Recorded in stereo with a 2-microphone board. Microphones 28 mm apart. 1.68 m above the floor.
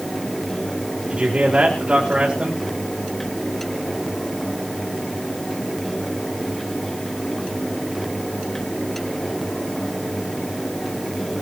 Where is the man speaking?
40° right (ahead or behind), 5 m.